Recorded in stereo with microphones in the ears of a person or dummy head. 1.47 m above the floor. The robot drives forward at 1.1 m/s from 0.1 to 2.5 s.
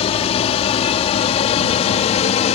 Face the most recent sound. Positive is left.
turn(degrees=35)  # may be behind; listen again after turning